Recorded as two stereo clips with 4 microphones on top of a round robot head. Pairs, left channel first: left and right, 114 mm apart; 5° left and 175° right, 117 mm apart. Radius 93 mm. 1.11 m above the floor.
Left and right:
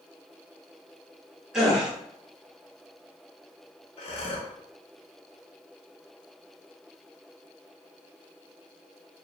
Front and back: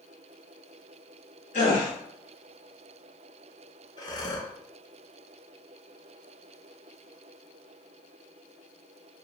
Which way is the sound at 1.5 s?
5° right.